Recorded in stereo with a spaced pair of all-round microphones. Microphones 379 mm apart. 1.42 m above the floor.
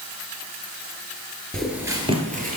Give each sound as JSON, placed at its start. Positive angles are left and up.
{"t": 1.5, "sound": "footsteps", "side_deg": 0, "distance_m": 1.4}